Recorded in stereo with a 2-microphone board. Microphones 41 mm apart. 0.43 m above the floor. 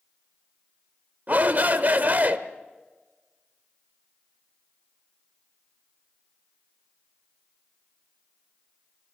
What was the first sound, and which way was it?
A shout, 45° right (ahead or behind).